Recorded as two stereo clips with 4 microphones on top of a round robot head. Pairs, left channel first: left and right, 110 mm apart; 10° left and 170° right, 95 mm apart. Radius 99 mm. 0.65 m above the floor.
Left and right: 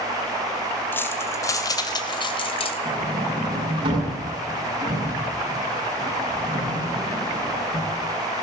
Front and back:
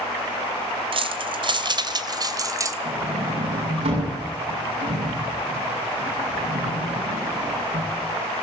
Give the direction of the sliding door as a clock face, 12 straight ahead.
5 o'clock.